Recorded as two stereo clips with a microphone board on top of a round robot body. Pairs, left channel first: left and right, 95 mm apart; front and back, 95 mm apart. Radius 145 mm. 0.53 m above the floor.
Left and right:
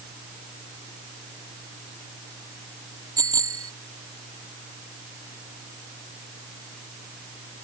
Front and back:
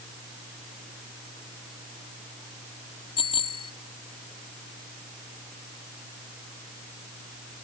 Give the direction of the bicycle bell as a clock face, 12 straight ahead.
1 o'clock.